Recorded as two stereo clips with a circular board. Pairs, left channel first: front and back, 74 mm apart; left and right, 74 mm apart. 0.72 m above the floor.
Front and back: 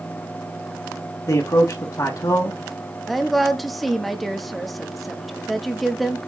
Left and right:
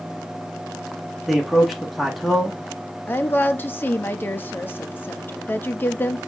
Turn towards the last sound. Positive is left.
turn(degrees=85)